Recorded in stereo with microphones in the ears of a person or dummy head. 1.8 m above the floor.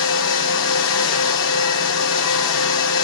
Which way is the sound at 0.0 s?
75° left (ahead or behind).